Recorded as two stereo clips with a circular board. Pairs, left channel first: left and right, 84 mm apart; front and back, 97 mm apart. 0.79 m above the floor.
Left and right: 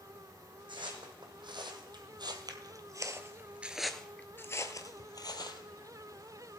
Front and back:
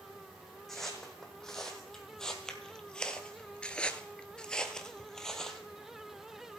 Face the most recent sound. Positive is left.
turn(degrees=85)